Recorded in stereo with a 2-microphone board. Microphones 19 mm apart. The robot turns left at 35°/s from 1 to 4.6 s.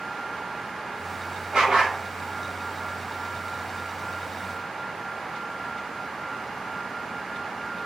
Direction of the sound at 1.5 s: 45° right (ahead or behind).